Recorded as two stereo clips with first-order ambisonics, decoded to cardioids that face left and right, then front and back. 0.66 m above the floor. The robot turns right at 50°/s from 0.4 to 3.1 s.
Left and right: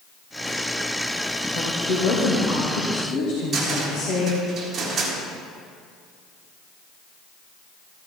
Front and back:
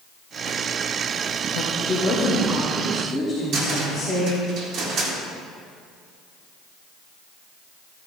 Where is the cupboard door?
150° right, 1.9 m.